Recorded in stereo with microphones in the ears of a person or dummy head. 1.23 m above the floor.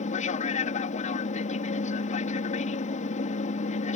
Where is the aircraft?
40° left (ahead or behind).